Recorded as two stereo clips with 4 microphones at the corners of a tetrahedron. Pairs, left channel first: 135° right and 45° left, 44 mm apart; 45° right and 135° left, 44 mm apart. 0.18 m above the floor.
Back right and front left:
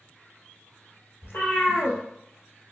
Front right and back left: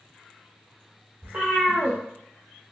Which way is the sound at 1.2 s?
160° right.